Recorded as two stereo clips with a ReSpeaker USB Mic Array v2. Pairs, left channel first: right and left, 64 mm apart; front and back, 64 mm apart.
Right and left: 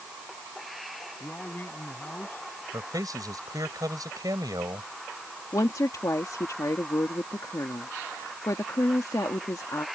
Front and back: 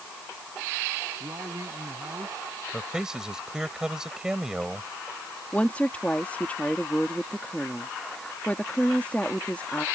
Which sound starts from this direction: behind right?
A man speaking, at 1.2 s.